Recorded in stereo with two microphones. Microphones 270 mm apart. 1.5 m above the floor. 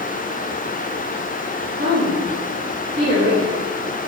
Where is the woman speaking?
40° right (ahead or behind), 2.5 m.